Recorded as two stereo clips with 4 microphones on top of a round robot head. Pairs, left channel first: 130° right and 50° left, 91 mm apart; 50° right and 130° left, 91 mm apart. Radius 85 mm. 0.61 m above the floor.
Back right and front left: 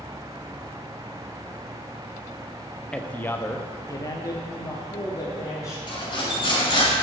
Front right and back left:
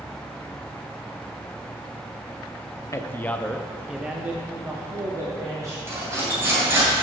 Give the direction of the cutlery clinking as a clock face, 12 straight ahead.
6 o'clock.